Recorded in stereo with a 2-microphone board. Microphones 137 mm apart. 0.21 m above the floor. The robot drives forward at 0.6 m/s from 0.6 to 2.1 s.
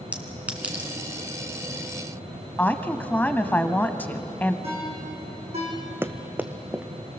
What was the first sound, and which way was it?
A clink, 10° right (ahead or behind).